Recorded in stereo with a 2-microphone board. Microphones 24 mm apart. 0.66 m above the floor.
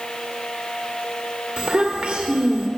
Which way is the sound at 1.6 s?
55° right (ahead or behind).